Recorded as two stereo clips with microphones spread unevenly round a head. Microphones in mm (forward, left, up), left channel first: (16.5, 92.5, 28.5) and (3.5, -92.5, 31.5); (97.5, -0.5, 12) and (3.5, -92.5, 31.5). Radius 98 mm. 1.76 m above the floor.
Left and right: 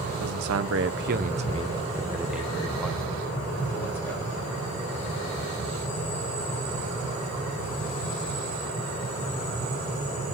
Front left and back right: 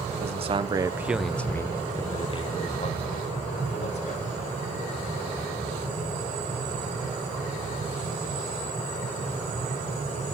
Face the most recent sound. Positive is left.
turn(degrees=10)